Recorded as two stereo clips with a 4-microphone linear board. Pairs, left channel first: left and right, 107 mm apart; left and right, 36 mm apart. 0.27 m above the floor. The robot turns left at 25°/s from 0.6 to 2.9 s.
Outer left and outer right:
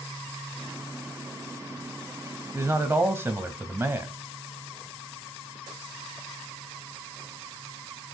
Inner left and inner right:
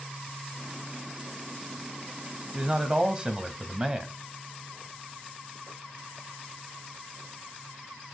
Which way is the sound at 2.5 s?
30° right (ahead or behind).